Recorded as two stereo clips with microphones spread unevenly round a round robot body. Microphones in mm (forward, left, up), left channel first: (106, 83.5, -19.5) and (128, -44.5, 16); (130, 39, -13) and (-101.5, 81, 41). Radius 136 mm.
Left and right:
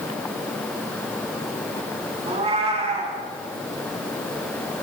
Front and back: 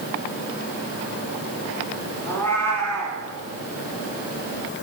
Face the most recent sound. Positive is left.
turn(degrees=-100)